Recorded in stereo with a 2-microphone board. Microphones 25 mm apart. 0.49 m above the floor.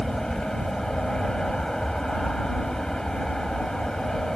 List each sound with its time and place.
0.0 s an aircraft: 25° left (ahead or behind)